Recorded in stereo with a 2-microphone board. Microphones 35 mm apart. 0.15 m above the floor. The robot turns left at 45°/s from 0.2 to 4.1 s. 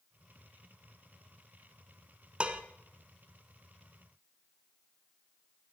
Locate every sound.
2.4 s dishes clattering: 30° right (ahead or behind), 1.0 m; by 2.6 s 35° right (ahead or behind), 1.0 m